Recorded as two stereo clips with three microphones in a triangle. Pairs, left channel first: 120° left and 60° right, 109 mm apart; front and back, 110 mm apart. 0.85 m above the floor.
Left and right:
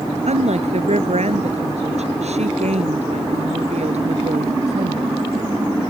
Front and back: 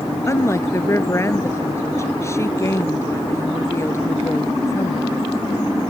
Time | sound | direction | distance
0.3 | a woman speaking | 65° right | ?